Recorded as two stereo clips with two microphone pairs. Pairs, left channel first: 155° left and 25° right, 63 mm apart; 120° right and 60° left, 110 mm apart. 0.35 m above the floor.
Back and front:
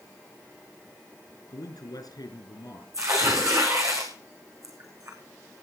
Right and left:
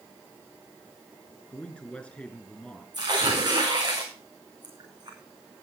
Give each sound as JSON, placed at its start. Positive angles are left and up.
{"t": 1.5, "sound": "a man speaking", "azimuth_deg": 155, "distance_m": 4.0}
{"t": 2.9, "sound": "tearing paper", "azimuth_deg": 10, "distance_m": 4.5}